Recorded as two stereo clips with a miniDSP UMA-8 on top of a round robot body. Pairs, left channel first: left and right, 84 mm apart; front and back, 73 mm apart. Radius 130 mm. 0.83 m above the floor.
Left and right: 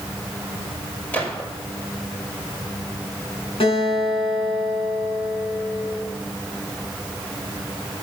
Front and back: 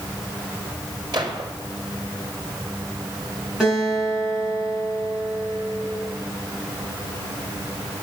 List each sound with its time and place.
1.1 s a gunshot: 160° left, 4 m
3.6 s a guitar: 95° left, 7.5 m